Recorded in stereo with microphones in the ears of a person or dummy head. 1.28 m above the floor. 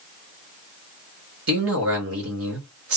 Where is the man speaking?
65° right (ahead or behind), 1.2 m.